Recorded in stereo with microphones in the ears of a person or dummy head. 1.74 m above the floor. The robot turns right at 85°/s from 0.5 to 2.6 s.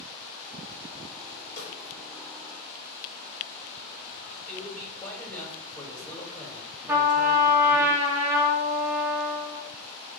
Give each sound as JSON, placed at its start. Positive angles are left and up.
{"t": 1.6, "sound": "a snare drum", "side_deg": 45, "distance_m": 4.0}
{"t": 4.5, "sound": "a man speaking", "side_deg": 10, "distance_m": 3.0}
{"t": 6.9, "sound": "a trumpet", "side_deg": -10, "distance_m": 1.0}